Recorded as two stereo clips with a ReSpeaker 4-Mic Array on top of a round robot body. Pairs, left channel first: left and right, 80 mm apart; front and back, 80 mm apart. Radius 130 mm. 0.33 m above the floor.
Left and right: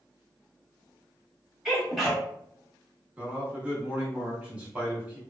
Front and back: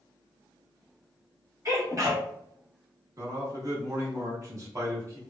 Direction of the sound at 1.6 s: 175° right.